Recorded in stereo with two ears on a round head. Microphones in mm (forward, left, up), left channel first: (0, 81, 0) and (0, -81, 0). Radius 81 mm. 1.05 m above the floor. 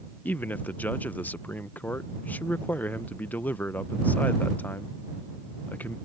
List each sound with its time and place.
0.2 s a man speaking: 10° left (ahead or behind)